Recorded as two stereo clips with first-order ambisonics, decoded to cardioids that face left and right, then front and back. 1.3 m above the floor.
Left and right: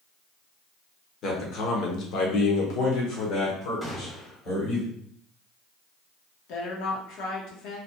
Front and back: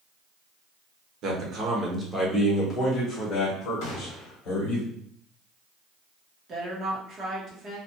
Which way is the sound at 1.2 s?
140° left.